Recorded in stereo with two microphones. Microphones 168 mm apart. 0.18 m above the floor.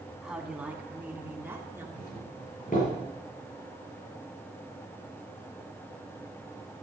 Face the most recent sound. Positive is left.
turn(degrees=55)  # may be behind; listen again after turning